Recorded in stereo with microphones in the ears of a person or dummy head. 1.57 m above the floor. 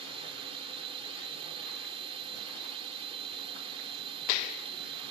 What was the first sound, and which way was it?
A drone, 25° right (ahead or behind).